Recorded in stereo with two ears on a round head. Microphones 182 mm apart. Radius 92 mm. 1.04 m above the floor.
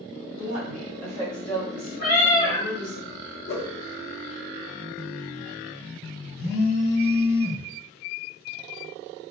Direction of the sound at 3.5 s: 55° left (ahead or behind).